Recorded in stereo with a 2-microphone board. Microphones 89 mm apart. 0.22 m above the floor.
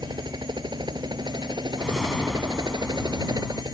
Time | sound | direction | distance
0.0 | a helicopter | 55° right (ahead or behind) | ?
1.8 | a whoosh | 5° left (ahead or behind) | ?